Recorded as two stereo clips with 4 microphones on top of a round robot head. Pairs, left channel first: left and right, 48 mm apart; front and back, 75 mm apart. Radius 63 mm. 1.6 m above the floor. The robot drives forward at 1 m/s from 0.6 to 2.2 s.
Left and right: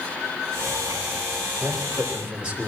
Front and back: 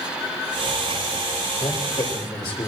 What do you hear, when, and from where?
1.6 s a man speaking: 25° right, 7 m